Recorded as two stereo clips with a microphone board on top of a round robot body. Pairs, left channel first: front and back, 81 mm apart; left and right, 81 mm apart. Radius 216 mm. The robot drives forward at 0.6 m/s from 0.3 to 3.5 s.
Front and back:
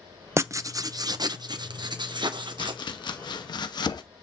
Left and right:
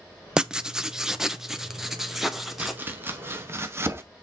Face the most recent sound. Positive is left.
turn(degrees=-30)